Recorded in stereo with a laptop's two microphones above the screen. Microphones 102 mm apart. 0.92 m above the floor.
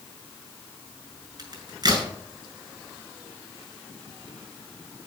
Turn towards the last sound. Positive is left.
turn(degrees=-45)  # may be behind; listen again after turning